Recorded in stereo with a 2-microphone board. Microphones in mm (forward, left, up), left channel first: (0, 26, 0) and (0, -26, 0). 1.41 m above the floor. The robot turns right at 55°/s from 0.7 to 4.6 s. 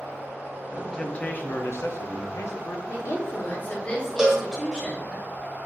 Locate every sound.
0.7 s a man speaking: straight ahead, 0.5 m; by 2.8 s 115° left, 0.5 m
2.9 s a woman speaking: 100° left, 1.2 m; by 5.2 s 165° right, 1.2 m
4.2 s a cowbell: 10° right (ahead or behind), 0.8 m; by 4.5 s 5° left (ahead or behind), 0.8 m